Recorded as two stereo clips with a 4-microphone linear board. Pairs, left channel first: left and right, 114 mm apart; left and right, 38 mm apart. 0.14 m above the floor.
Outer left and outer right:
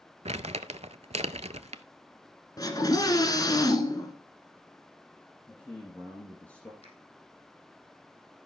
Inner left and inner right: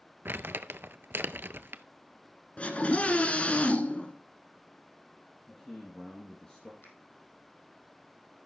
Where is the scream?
35° left (ahead or behind), 1.4 m.